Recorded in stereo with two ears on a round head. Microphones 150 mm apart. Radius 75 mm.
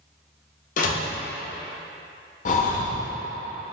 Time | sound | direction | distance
0.8 | a door slam | 55° left (ahead or behind) | 0.7 m
2.5 | breathing | 45° left (ahead or behind) | 0.5 m